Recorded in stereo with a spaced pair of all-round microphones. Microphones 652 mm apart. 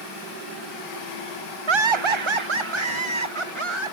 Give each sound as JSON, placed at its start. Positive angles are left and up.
{"t": 1.7, "sound": "laughter", "side_deg": -45}